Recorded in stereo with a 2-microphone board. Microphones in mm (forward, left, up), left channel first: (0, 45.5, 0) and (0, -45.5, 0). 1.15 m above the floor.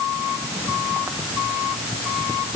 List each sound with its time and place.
Only background noise.